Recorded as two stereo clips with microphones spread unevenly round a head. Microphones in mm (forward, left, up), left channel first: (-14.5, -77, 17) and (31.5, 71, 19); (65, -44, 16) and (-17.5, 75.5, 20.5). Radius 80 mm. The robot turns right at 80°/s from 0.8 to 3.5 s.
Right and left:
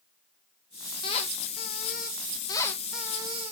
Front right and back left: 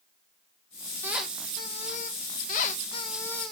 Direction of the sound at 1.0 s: 165° right.